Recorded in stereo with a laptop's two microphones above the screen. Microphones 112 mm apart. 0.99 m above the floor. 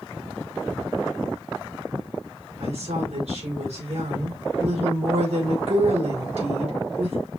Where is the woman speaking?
70° right (ahead or behind), 3 m.